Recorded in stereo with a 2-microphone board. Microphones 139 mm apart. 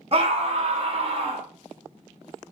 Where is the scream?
45° right (ahead or behind), 0.8 m.